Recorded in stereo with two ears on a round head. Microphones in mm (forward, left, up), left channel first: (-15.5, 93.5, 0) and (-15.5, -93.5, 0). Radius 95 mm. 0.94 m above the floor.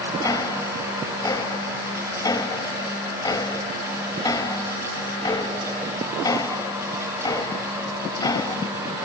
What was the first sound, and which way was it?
Ticking, 20° left (ahead or behind).